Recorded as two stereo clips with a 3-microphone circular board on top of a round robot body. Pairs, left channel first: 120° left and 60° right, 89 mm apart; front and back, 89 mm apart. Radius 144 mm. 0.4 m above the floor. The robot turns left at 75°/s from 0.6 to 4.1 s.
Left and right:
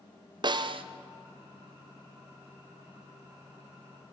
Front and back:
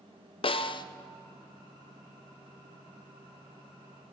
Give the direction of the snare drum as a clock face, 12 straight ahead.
1 o'clock.